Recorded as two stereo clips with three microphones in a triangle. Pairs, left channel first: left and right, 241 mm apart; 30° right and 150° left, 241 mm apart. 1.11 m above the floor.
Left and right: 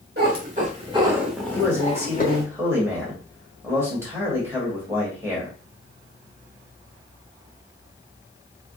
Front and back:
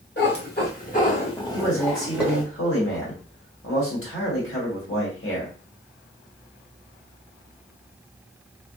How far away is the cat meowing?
About 1.2 m.